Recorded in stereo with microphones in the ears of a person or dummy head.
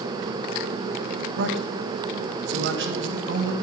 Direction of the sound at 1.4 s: 65° right (ahead or behind).